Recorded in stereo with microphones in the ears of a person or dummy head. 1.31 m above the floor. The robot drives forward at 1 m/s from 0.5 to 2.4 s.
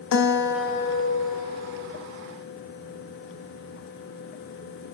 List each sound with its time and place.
0.1 s a guitar: 75° left (ahead or behind), 0.9 m; by 2.1 s 30° left (ahead or behind), 1.9 m